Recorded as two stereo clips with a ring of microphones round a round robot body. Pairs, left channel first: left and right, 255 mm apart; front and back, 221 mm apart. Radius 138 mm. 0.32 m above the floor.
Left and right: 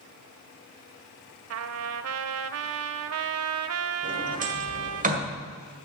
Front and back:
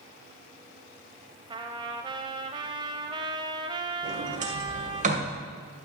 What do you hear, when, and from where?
1.5 s a trumpet: 110° right, 0.6 m
4.0 s a sliding door: 135° right, 1.9 m